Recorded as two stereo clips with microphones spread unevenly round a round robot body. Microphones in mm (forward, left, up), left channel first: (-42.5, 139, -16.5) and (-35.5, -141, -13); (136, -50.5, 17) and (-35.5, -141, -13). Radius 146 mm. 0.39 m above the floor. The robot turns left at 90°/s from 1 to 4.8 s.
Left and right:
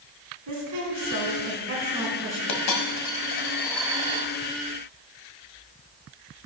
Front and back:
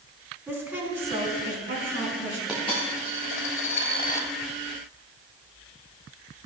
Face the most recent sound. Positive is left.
turn(degrees=-85)